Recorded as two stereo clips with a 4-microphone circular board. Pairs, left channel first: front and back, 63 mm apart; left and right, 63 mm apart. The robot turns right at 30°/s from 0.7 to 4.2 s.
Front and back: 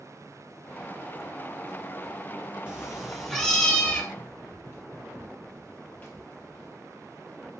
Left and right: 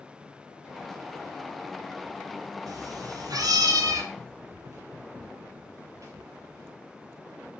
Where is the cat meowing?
105° right, 3.5 m; by 4.0 s 65° right, 3.5 m.